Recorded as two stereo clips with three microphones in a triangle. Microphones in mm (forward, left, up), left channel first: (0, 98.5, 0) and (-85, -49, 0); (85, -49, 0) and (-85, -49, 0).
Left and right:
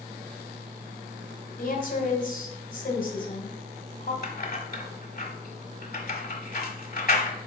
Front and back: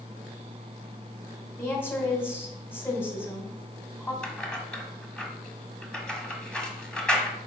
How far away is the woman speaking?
About 2 m.